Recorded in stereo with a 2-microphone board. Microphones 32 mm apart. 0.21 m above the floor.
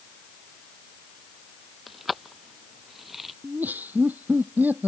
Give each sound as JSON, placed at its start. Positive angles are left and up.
{"t": 1.9, "sound": "keys jangling", "side_deg": 0}
{"t": 3.4, "sound": "laughter", "side_deg": -80}